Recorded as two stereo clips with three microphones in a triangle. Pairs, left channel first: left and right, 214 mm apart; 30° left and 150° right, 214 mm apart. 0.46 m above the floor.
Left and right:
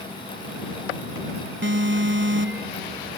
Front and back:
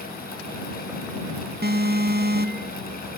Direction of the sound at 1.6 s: 110° right.